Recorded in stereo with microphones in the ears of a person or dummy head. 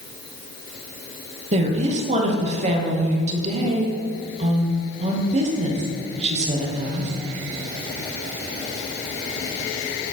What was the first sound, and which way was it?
A woman speaking, 40° right (ahead or behind).